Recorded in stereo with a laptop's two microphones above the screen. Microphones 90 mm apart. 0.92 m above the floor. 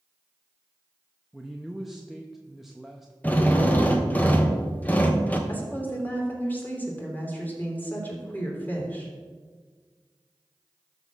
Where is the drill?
20° left (ahead or behind), 0.9 m.